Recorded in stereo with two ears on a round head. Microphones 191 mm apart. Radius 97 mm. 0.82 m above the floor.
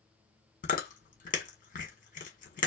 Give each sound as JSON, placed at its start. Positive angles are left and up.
{"t": 0.6, "sound": "chewing", "side_deg": 40, "distance_m": 1.7}